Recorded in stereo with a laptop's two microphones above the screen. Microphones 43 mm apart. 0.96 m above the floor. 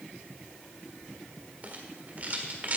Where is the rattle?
40° right (ahead or behind), 1.6 m.